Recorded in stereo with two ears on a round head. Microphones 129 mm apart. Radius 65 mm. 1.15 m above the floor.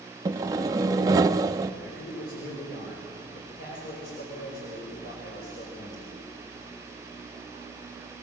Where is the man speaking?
75° left (ahead or behind), 5 m.